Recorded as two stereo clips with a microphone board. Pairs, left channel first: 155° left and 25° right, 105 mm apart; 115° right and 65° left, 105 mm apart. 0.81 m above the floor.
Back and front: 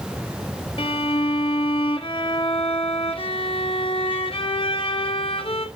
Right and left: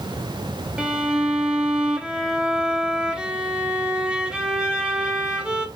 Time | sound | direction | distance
0.8 | a violin | 145° left | 1.2 m